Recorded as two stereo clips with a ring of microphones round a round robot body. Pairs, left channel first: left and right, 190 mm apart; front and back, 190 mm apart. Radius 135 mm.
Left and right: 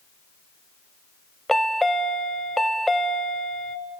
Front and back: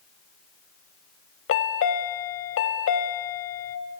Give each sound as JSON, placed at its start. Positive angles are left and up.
{"t": 1.5, "sound": "a chime", "azimuth_deg": 0, "distance_m": 0.8}